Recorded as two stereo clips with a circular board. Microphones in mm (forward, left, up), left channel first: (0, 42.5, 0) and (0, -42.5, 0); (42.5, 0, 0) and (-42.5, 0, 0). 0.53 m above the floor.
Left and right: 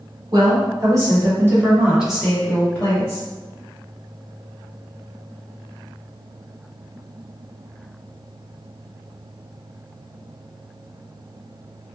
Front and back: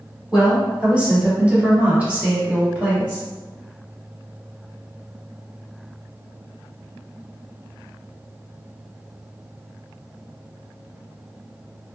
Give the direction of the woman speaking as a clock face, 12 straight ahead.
3 o'clock.